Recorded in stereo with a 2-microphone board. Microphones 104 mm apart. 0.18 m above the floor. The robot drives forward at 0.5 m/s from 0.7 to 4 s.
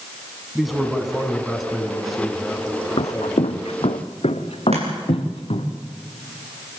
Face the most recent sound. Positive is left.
turn(degrees=-85)